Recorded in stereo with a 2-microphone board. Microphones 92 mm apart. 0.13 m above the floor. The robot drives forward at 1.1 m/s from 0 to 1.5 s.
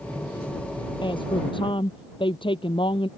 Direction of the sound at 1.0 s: 60° left (ahead or behind).